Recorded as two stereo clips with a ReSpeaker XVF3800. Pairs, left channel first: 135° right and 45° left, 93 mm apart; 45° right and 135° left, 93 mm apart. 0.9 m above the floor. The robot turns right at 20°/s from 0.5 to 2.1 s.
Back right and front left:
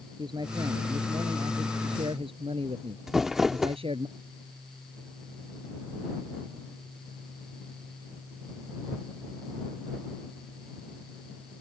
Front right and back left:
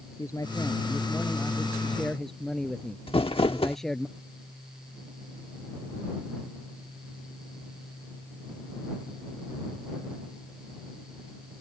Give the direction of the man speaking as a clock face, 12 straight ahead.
12 o'clock.